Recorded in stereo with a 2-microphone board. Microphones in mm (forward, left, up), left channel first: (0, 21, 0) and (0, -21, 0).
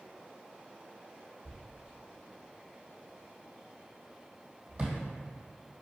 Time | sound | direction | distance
1.4 | a thud | 35° right (ahead or behind) | 2 m